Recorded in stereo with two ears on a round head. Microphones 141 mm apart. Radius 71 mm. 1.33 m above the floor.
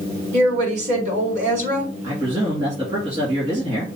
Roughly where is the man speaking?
Right.